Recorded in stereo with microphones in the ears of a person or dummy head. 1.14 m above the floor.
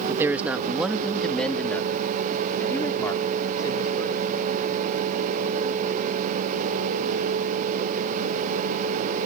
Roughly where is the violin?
I don't hear a violin.